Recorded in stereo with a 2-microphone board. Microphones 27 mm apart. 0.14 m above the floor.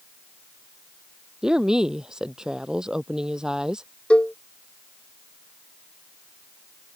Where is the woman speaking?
25° right (ahead or behind).